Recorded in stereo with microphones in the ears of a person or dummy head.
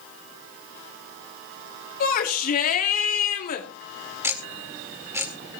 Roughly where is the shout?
Left.